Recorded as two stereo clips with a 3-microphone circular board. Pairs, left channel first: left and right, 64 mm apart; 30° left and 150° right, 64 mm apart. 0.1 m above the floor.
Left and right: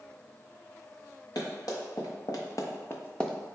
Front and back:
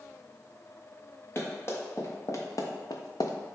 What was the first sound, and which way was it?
Running footsteps, 85° left.